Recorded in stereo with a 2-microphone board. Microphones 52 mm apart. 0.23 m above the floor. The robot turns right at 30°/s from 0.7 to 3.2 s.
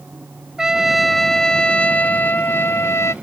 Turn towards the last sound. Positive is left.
turn(degrees=65)